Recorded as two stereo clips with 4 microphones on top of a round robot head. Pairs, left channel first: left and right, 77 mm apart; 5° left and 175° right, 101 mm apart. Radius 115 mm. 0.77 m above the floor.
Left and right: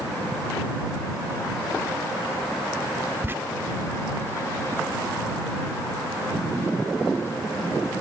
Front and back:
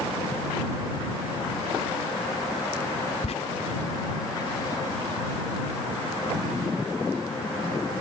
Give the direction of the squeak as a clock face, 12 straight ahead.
1 o'clock.